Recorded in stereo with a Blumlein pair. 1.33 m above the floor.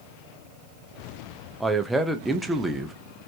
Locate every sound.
1.6 s a man speaking: 5° right, 0.5 m